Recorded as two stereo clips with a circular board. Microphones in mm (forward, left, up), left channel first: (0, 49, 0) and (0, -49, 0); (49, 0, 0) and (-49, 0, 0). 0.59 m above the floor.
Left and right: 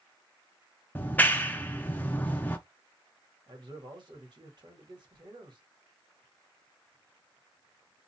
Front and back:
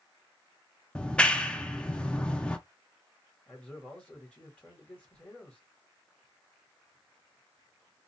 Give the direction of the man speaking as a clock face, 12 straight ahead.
2 o'clock.